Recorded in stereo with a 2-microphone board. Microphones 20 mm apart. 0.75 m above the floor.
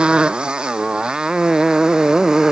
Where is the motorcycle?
60° right (ahead or behind); by 2.5 s 40° right (ahead or behind).